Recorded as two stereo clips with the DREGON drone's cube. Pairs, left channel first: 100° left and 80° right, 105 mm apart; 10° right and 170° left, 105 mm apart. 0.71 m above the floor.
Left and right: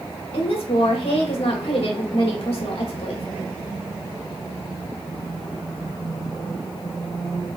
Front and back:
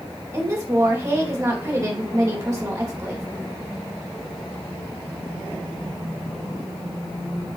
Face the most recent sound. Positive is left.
turn(degrees=115)